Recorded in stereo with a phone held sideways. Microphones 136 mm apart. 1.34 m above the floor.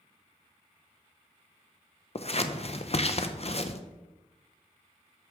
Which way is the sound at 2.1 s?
50° left (ahead or behind).